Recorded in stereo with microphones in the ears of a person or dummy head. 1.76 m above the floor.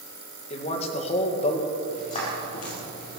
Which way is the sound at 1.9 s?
35° left (ahead or behind).